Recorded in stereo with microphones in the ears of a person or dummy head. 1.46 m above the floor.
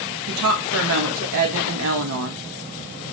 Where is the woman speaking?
70° right (ahead or behind), 0.7 m.